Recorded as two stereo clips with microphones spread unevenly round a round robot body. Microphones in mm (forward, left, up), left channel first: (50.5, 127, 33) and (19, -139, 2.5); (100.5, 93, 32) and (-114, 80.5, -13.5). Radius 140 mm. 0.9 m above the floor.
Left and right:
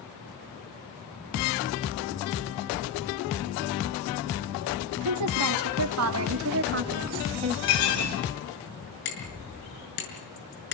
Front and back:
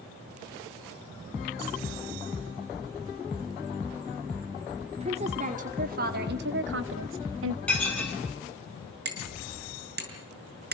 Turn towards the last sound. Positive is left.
turn(degrees=140)